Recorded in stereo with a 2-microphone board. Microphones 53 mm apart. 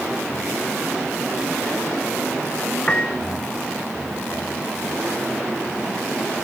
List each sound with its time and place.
2.9 s a piano: 20° left (ahead or behind)